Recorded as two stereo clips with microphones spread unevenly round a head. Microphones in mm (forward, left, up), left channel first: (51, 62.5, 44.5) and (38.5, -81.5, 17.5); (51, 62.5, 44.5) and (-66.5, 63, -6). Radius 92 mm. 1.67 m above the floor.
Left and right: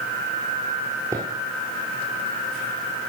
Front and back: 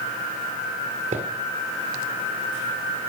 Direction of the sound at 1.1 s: 170° right.